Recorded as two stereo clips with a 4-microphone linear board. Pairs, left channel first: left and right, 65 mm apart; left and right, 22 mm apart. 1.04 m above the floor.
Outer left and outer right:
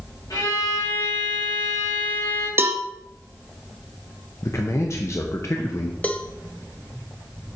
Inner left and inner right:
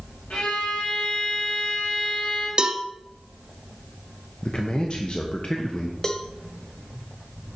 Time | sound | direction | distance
0.3 | a violin | 75° left (ahead or behind) | 2.0 m
2.6 | a cowbell | 35° right (ahead or behind) | 0.6 m
4.4 | a man speaking | 45° left (ahead or behind) | 0.7 m
6.0 | a cowbell | 20° left (ahead or behind) | 0.6 m